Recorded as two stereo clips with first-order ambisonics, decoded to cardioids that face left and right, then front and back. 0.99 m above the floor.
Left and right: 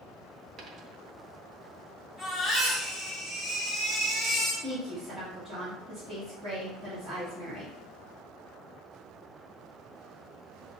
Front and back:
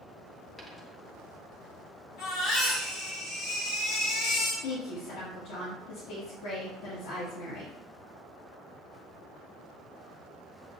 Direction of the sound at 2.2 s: 5° left.